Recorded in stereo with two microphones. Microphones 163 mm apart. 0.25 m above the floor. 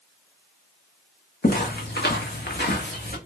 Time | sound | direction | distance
1.4 | footsteps | 65° left (ahead or behind) | 0.9 m